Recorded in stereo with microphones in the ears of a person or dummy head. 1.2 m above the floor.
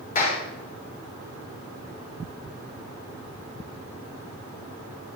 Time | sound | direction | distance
0.1 | a clap | 45° left (ahead or behind) | 3 m